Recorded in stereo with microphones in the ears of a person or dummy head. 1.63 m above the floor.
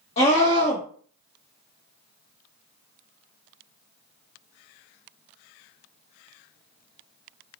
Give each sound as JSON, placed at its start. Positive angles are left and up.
{"t": 0.2, "sound": "a scream", "side_deg": 35, "distance_m": 1.0}